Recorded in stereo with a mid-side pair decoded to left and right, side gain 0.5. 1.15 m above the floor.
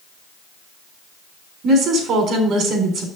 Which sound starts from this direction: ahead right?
A woman speaking, at 1.6 s.